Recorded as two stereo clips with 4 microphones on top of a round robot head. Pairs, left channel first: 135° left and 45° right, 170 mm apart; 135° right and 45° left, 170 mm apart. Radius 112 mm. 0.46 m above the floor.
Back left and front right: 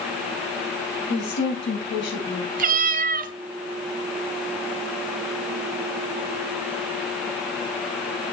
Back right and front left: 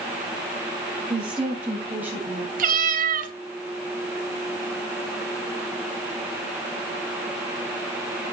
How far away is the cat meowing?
About 1.2 m.